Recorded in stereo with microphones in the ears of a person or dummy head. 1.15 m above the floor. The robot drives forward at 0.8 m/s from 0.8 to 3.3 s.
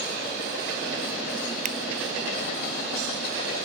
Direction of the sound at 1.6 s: 45° right (ahead or behind).